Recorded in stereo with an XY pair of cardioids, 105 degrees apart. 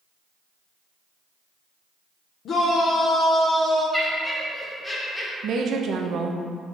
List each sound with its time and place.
2.5 s a shout: 65° left, 0.8 m; by 3.8 s 30° left, 1.9 m
3.9 s laughter: 15° left, 1.4 m
5.4 s a woman speaking: 65° right, 0.6 m